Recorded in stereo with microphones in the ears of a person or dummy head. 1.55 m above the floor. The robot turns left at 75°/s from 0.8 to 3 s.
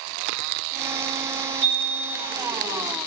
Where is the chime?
90° right, 1.7 m; by 2.3 s 145° right, 1.7 m.